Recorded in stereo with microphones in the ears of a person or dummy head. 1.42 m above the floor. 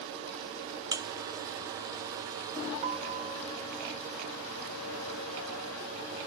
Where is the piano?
40° right (ahead or behind).